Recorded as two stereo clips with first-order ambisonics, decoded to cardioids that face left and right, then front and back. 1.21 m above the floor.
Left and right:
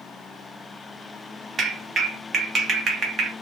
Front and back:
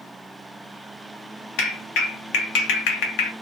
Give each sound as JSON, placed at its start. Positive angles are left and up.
{"t": 1.6, "sound": "a clap", "azimuth_deg": -25, "distance_m": 1.1}